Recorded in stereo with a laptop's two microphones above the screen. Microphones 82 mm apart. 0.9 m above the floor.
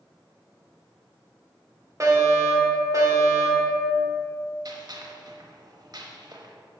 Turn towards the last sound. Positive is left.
turn(degrees=-55)  # may be behind; listen again after turning